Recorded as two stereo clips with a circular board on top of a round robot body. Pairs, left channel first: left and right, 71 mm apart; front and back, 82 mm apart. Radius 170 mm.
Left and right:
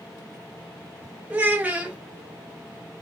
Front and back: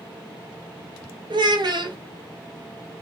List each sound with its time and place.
1.3 s a child speaking: 160° right, 1.8 m